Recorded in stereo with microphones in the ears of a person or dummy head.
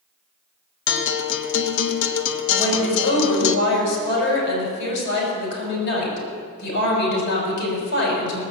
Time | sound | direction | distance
0.9 | a guitar | 70° left (ahead or behind) | 0.8 m
2.6 | a woman speaking | 60° left (ahead or behind) | 6.5 m